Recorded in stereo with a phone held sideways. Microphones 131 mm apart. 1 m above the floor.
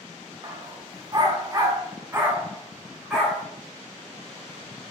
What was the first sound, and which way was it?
A dog barking, 30° right (ahead or behind).